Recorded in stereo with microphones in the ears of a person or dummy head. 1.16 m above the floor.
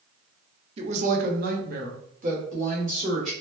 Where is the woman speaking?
30° right (ahead or behind), 0.6 m; by 3.3 s 45° right (ahead or behind), 1.8 m.